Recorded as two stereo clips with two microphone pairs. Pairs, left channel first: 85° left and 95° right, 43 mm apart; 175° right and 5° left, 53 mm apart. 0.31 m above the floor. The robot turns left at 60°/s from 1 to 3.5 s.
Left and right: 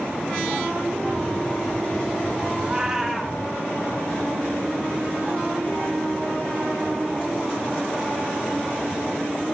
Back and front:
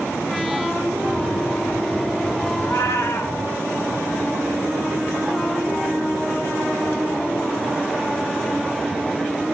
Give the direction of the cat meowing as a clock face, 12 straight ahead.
5 o'clock.